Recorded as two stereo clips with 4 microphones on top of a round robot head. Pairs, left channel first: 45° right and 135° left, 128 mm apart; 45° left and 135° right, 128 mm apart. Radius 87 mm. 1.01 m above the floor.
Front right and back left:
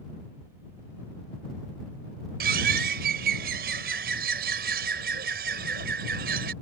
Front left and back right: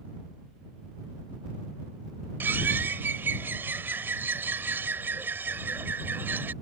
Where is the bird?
150° left.